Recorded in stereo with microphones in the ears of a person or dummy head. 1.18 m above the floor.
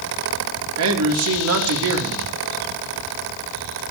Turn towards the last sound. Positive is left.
turn(degrees=-80)